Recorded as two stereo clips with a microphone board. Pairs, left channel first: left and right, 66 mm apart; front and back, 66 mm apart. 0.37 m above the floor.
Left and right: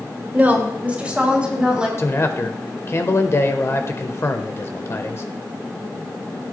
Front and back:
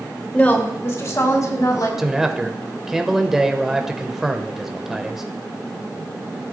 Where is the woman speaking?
55° right, 1.5 m; by 1.9 s 15° right, 3 m.